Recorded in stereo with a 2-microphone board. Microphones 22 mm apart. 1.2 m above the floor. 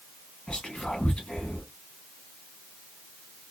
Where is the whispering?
40° left (ahead or behind), 1.4 m.